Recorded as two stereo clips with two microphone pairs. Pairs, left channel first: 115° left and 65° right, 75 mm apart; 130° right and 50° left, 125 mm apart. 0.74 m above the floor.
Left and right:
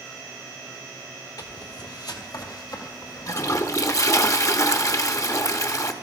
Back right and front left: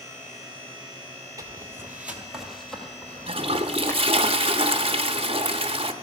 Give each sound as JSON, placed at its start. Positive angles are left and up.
{"t": 1.4, "sound": "footsteps", "azimuth_deg": 105, "distance_m": 1.3}
{"t": 3.3, "sound": "a toilet flushing", "azimuth_deg": 80, "distance_m": 0.8}